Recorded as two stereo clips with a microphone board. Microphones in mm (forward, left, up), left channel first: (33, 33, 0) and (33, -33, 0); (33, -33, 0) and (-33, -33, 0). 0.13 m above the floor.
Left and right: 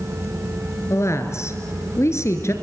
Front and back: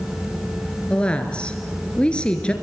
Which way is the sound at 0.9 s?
65° left.